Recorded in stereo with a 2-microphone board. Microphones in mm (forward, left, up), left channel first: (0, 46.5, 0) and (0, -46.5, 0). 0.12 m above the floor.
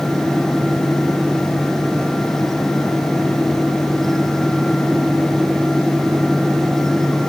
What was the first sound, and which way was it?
Only background noise.